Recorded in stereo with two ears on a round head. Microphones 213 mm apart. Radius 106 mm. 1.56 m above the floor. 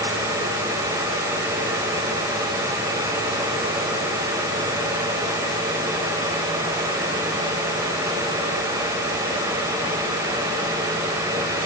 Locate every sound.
Only background noise.